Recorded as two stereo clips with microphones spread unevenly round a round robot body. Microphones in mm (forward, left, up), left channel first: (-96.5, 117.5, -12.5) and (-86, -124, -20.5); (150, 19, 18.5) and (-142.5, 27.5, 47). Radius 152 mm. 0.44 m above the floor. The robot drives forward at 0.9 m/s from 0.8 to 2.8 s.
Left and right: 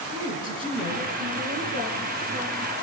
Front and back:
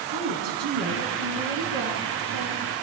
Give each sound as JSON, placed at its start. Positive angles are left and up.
{"t": 0.1, "sound": "a woman speaking", "azimuth_deg": -155, "distance_m": 5.0}